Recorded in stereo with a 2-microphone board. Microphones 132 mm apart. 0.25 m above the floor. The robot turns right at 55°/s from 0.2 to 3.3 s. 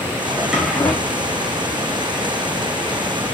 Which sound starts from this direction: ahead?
A drawer, at 0.3 s.